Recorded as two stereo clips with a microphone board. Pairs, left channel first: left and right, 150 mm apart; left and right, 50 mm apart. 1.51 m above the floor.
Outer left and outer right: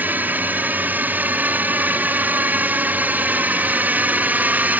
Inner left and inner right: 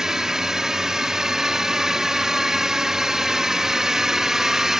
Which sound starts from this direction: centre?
A drone, at 0.0 s.